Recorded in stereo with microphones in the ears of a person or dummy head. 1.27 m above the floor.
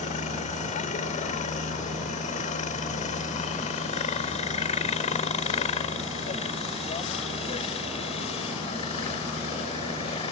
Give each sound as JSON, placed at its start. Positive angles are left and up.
{"t": 0.0, "sound": "a helicopter", "side_deg": 40}